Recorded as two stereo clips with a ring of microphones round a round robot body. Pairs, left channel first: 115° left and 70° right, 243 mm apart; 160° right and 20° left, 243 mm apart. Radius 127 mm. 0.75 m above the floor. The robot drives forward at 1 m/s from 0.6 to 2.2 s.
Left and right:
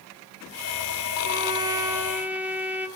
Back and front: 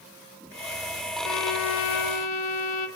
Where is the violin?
130° right, 1.5 m; by 2.9 s 150° right, 2.5 m.